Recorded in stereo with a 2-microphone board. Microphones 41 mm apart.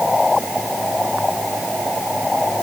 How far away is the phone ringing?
No phone ringing in this recording.